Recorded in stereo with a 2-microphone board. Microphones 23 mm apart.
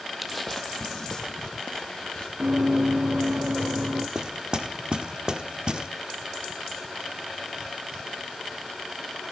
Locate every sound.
0.2 s footsteps: 5° right (ahead or behind), 0.7 m; by 2.3 s 40° left (ahead or behind), 2.5 m
2.4 s running footsteps: 70° right (ahead or behind), 2.5 m; by 4.0 s 80° right, 3 m
4.2 s knocking: 40° right (ahead or behind), 1.3 m